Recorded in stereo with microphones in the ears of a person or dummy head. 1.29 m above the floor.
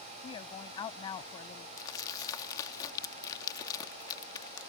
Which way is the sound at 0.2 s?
30° left (ahead or behind).